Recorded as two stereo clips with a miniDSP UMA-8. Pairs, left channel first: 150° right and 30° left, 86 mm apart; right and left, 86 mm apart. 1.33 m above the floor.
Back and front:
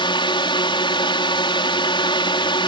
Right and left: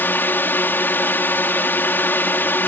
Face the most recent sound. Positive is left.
turn(degrees=-155)